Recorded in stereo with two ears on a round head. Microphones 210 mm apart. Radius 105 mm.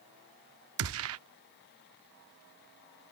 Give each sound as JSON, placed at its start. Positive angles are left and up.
{"t": 0.8, "sound": "a gunshot", "side_deg": -65}